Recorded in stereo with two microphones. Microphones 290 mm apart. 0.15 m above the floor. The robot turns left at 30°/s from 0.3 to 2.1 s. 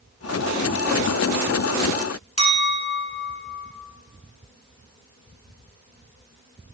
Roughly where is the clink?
Left.